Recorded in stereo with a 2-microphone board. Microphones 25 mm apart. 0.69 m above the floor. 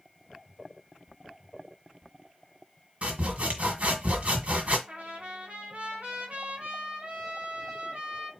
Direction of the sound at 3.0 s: 60° right (ahead or behind).